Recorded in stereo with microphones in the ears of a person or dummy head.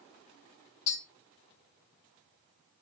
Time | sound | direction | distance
0.9 | tapping | 55° left (ahead or behind) | 3 m